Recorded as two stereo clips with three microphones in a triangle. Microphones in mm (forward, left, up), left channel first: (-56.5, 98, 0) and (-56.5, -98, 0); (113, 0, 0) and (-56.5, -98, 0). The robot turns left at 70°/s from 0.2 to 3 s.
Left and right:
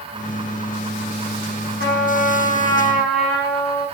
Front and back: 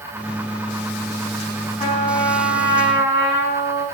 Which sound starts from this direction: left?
A trumpet, at 1.8 s.